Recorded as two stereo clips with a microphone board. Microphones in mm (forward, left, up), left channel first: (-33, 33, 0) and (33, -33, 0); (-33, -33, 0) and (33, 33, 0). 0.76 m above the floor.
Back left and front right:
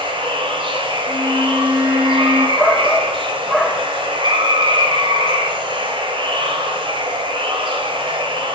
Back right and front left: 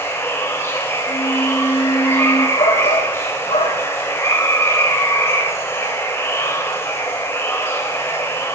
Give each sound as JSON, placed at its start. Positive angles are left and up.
{"t": 0.0, "sound": "running water", "azimuth_deg": -70, "distance_m": 2.5}
{"t": 1.1, "sound": "a violin", "azimuth_deg": -120, "distance_m": 5.5}
{"t": 2.6, "sound": "a shout", "azimuth_deg": -135, "distance_m": 3.0}